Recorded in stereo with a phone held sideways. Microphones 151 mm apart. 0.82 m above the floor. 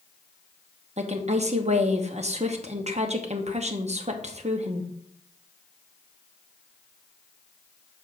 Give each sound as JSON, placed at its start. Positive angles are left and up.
{"t": 1.0, "sound": "a woman speaking", "side_deg": -50, "distance_m": 0.9}